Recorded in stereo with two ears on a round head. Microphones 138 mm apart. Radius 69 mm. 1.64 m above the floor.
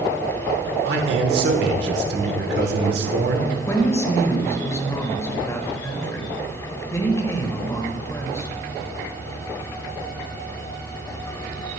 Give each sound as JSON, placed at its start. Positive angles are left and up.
{"t": 0.8, "sound": "a man speaking", "side_deg": -75, "distance_m": 1.3}
{"t": 3.7, "sound": "a woman speaking", "side_deg": 20, "distance_m": 1.6}